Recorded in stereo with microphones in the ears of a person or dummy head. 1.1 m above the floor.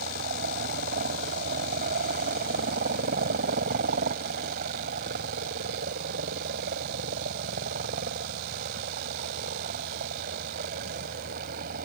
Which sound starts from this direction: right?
A helicopter, at 0.0 s.